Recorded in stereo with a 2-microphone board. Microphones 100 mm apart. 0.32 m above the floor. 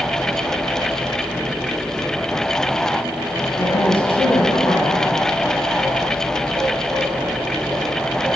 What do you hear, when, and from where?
3.6 s a woman speaking: 65° left (ahead or behind), 3.5 m